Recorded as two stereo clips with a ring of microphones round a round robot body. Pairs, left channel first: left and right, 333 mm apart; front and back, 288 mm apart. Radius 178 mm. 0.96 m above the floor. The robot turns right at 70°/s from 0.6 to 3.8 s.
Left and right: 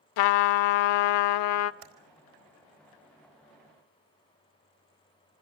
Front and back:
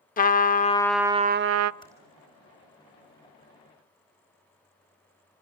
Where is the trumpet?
65° left, 0.5 m; by 1.7 s 145° left, 0.5 m.